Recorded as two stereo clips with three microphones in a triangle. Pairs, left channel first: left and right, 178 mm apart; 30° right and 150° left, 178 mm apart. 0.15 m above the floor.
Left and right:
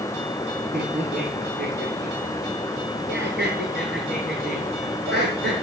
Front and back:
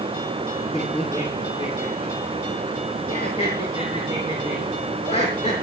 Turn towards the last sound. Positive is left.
turn(degrees=-85)